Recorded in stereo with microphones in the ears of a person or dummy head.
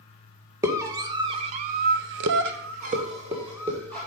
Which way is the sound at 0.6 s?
15° right (ahead or behind).